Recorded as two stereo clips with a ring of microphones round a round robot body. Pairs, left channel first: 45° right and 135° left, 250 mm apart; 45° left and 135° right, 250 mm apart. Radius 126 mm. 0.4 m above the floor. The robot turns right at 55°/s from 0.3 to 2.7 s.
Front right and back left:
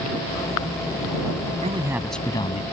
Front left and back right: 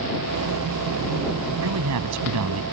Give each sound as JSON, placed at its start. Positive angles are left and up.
{"t": 1.6, "sound": "a man speaking", "azimuth_deg": -160}